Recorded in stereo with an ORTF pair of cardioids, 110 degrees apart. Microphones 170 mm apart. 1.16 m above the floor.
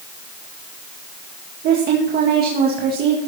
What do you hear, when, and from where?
1.6 s a woman speaking: 65° right, 1.8 m